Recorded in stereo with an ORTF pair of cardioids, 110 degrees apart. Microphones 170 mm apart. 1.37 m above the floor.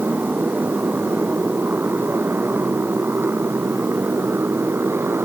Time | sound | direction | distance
0.0 | a motorcycle | 10° right | ?